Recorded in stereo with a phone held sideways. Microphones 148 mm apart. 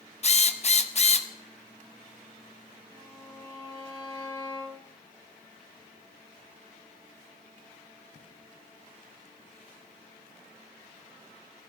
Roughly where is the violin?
Right.